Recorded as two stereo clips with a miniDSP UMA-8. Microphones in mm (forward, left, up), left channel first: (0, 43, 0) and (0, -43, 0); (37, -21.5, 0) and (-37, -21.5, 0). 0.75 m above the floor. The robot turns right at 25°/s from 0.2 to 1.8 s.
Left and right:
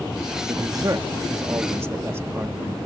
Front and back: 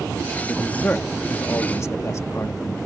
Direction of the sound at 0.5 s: 70° right.